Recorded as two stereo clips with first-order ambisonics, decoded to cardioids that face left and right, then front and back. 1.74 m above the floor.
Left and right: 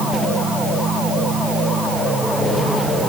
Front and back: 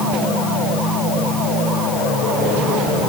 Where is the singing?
No singing in this recording.